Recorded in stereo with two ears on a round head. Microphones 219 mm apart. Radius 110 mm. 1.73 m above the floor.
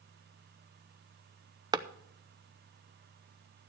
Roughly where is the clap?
Centre.